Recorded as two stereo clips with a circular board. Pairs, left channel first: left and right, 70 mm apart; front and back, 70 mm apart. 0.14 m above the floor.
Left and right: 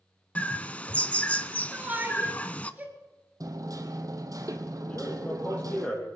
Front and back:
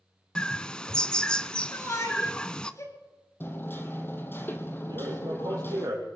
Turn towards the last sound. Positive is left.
turn(degrees=155)